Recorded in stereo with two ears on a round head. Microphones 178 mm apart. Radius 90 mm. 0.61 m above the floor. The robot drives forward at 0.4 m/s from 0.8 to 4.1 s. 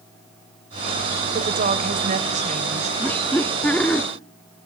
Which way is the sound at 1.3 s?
45° right (ahead or behind).